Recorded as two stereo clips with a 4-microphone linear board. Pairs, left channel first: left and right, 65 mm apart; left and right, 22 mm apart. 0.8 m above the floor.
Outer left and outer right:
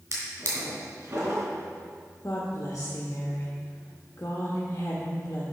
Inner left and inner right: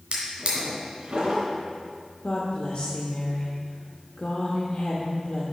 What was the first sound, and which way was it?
A drawer, 50° right (ahead or behind).